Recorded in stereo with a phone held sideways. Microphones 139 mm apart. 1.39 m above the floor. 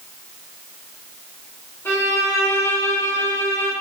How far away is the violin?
About 1.0 m.